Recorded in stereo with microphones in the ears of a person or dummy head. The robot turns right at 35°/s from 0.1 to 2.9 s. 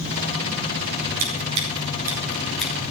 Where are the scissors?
45° right (ahead or behind), 4.5 m; by 2.7 s 10° left (ahead or behind), 4.5 m.